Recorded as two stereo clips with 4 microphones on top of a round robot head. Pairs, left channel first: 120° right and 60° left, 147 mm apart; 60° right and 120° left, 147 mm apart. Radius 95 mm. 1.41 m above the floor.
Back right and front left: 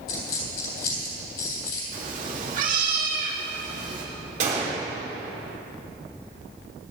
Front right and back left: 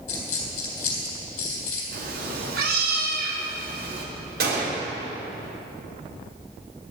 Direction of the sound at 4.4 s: 100° left.